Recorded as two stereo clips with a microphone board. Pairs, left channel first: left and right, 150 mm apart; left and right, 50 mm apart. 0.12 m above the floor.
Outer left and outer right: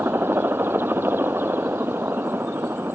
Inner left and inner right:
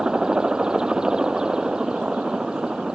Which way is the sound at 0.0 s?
15° right (ahead or behind).